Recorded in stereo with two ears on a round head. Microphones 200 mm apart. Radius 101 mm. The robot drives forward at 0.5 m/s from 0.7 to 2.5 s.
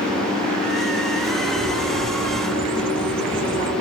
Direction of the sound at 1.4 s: 30° right (ahead or behind).